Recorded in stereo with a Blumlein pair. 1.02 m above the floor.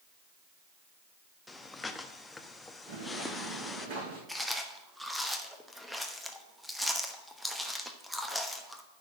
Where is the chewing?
Straight ahead, 1.0 m.